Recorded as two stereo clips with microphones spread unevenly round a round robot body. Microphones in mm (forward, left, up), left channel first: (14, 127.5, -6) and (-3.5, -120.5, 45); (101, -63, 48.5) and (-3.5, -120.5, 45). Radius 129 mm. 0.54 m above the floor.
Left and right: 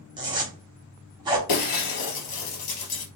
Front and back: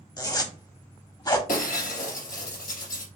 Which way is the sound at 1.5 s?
65° left.